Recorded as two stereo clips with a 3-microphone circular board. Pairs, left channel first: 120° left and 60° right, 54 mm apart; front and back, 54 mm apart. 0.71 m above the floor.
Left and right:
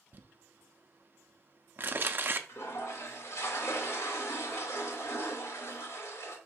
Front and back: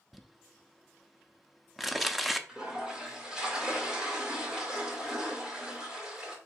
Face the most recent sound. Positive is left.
turn(degrees=105)